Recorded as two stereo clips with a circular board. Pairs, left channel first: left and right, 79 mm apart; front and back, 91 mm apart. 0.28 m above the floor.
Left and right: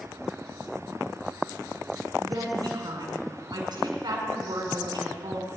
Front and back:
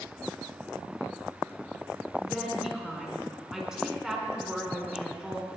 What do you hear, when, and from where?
2.2 s a woman speaking: 95° right, 3 m